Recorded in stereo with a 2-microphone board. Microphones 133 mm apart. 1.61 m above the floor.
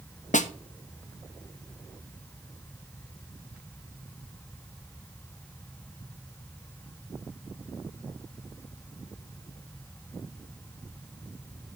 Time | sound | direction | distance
0.3 | a snare drum | 75° left (ahead or behind) | 0.7 m